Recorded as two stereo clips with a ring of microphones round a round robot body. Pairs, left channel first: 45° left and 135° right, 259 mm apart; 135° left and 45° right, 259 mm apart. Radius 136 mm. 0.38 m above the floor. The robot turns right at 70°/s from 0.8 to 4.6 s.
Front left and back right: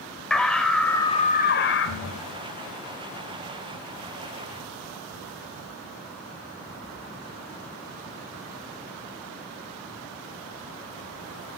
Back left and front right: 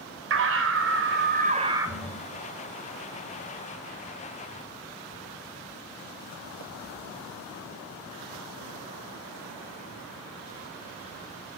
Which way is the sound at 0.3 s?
40° right.